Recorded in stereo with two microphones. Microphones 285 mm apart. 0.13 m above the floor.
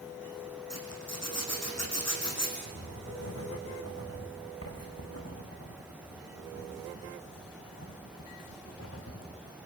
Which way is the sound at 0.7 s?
60° left (ahead or behind).